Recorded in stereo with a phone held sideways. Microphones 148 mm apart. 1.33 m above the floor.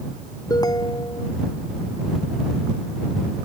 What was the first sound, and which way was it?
A ringtone, 25° left (ahead or behind).